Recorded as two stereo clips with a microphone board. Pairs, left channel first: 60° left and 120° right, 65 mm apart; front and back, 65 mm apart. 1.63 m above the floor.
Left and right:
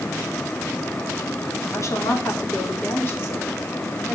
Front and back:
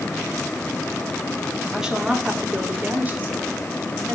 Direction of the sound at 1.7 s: 95° left.